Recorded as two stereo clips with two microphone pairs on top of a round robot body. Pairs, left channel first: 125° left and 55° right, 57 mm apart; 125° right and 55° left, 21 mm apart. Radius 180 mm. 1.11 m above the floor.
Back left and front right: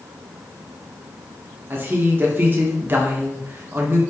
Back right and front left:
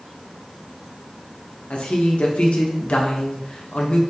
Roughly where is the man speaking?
Right.